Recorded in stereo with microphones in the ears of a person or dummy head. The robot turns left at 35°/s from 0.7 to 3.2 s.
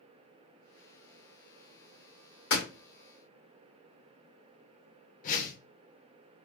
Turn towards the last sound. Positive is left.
turn(degrees=45)  # may be behind; listen again after turning